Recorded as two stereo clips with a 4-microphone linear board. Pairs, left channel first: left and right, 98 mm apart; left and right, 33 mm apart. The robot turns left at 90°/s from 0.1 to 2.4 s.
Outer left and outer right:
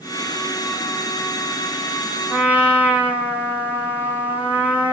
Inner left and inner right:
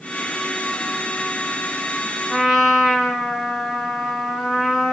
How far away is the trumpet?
About 5.5 m.